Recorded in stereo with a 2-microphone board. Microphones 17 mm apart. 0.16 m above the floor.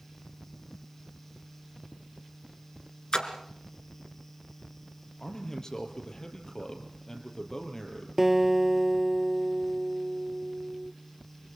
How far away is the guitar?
About 1.3 m.